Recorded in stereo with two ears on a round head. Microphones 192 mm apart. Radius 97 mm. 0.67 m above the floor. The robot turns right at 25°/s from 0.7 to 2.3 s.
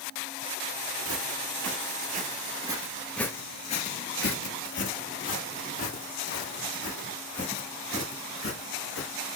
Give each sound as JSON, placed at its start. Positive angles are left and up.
{"t": 1.1, "sound": "footsteps", "side_deg": -65, "distance_m": 1.5}